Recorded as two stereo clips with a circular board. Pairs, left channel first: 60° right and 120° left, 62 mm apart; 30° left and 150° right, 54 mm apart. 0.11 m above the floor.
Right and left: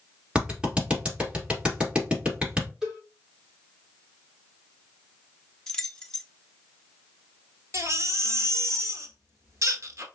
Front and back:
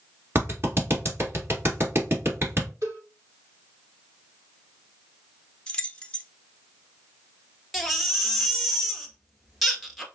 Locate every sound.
0.3 s a clap: 170° right, 2 m
2.8 s a cowbell: 160° right, 2.5 m
5.7 s keys jangling: straight ahead, 0.8 m
7.7 s a baby crying: 120° left, 1.2 m